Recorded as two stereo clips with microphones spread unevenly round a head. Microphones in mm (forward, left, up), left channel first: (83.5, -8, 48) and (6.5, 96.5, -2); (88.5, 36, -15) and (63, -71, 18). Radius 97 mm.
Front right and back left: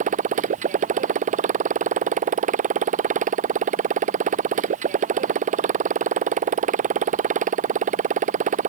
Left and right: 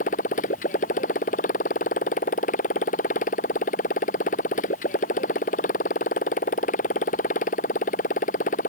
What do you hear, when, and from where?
0.0 s a motorcycle: 105° left